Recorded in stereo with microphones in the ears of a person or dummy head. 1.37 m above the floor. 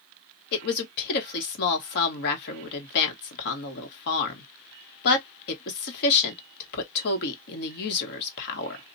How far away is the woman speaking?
About 1.3 m.